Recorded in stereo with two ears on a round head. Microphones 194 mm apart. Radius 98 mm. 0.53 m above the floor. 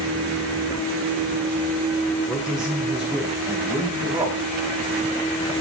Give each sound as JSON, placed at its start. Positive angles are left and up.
{"t": 2.3, "sound": "a man speaking", "side_deg": 0, "distance_m": 1.7}